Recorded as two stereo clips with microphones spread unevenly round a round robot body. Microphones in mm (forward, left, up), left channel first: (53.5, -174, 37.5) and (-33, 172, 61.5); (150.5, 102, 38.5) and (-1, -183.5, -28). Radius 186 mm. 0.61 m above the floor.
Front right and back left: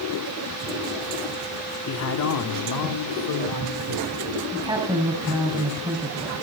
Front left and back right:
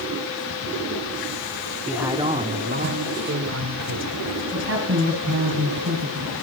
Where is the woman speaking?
175° right, 4.5 m.